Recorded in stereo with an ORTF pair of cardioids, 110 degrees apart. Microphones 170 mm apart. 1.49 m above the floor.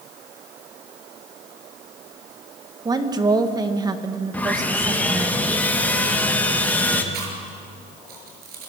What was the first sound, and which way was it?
A woman speaking, 25° right.